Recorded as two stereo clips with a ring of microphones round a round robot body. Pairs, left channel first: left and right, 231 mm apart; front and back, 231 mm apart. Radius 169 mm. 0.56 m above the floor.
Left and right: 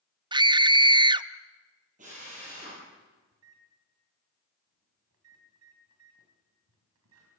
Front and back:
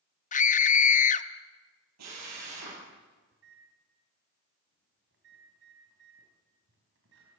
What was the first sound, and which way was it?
A scream, 30° right.